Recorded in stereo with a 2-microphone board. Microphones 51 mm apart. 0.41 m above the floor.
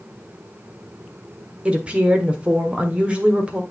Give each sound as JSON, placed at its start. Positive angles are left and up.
{"t": 1.6, "sound": "a woman speaking", "side_deg": -20, "distance_m": 1.1}